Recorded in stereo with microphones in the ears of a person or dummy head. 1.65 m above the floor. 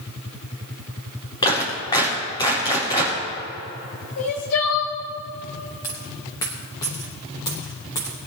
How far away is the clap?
About 4 m.